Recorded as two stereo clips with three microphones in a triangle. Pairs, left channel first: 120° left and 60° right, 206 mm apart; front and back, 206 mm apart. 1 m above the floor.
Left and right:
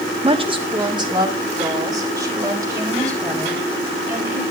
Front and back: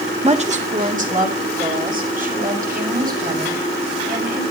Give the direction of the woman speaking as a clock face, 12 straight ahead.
4 o'clock.